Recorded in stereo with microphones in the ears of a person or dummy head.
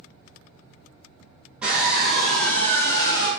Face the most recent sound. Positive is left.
turn(degrees=25)  # may be behind; listen again after turning